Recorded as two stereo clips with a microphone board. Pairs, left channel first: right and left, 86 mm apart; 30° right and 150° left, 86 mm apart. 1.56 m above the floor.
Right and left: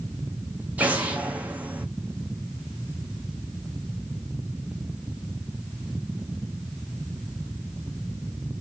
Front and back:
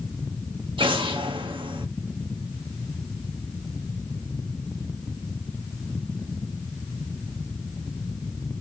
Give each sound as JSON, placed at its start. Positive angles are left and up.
{"t": 0.8, "sound": "an explosion", "azimuth_deg": 165, "distance_m": 0.9}